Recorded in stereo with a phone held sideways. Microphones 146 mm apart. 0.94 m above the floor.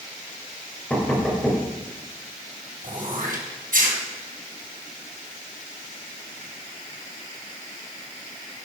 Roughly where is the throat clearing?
Right.